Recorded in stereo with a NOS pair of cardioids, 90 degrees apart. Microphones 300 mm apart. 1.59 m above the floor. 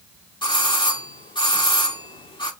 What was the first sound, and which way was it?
A doorbell, 15° left.